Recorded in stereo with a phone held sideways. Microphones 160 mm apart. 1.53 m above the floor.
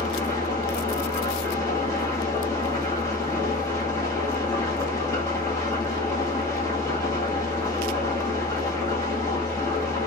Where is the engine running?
20° left (ahead or behind), 1.6 m.